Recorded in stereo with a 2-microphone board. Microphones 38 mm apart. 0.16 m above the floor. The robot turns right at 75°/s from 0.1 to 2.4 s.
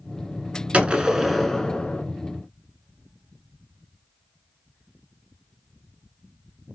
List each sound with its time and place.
0.7 s a gunshot: 45° right, 0.6 m; by 2.0 s 50° left, 0.6 m